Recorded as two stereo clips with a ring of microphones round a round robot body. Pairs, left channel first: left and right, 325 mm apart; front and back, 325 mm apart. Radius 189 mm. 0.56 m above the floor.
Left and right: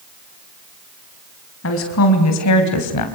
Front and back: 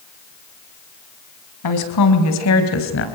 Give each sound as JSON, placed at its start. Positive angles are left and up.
{"t": 1.6, "sound": "a woman speaking", "azimuth_deg": 35, "distance_m": 4.5}